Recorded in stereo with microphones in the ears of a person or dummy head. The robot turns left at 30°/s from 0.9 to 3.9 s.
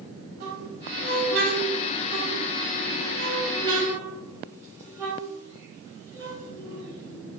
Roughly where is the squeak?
Right.